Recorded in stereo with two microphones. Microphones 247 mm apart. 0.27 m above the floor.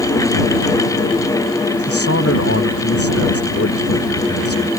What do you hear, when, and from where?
1.8 s a man speaking: 65° left (ahead or behind)